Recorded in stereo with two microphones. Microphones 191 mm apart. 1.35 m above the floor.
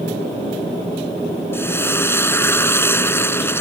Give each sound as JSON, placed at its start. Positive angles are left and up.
{"t": 1.5, "sound": "frying", "side_deg": 10}